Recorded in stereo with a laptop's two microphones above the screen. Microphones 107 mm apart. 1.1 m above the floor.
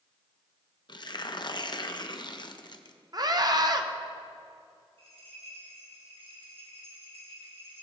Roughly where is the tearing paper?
Left.